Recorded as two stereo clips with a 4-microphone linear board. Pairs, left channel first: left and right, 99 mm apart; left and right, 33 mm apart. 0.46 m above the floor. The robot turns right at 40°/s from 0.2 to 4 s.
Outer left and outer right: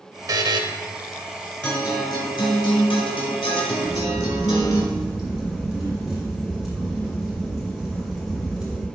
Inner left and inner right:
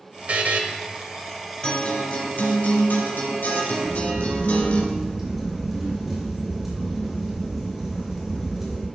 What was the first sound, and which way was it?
A buzzer, 40° right (ahead or behind).